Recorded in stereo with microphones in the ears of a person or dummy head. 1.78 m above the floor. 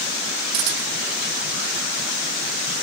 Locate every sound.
0.5 s a camera shutter: 70° right (ahead or behind), 3 m